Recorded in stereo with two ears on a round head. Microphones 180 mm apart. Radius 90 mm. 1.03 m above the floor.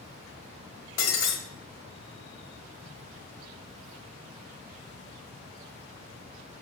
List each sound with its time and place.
1.0 s breaking glass: 65° left (ahead or behind), 1.4 m